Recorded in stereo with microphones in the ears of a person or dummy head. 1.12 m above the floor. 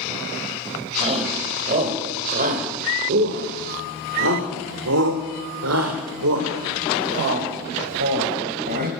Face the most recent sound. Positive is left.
turn(degrees=-50)  # may be behind; listen again after turning